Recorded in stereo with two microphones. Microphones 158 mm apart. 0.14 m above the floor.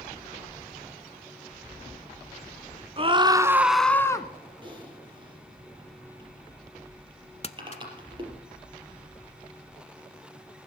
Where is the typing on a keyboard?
30° right (ahead or behind), 4.5 m.